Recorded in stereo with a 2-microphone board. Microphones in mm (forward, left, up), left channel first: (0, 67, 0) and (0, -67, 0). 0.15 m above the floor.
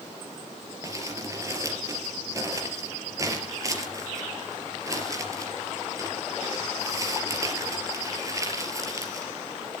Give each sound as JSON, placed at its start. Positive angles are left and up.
{"t": 0.8, "sound": "crumpling", "side_deg": -25, "distance_m": 3.5}